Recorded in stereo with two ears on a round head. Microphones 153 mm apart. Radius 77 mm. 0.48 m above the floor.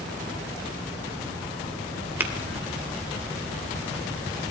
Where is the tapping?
15° right (ahead or behind), 2 m.